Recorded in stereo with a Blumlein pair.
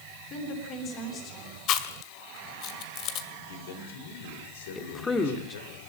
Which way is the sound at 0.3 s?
35° left.